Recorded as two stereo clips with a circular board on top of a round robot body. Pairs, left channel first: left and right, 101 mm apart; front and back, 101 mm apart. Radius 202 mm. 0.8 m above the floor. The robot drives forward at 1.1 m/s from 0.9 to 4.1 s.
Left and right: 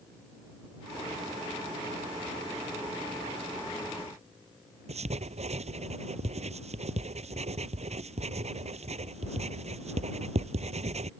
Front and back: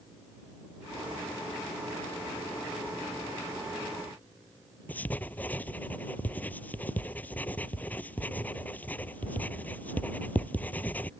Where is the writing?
75° right.